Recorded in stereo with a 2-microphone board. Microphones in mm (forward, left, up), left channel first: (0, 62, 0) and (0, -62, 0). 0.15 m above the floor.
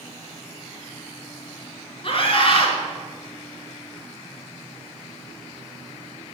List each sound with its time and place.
2.0 s a scream: 45° left (ahead or behind), 2.5 m